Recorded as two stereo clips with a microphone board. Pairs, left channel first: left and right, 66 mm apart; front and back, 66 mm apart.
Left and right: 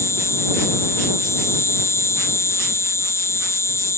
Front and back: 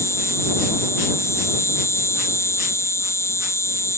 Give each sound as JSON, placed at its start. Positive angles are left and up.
{"t": 0.0, "sound": "an insect", "azimuth_deg": 45}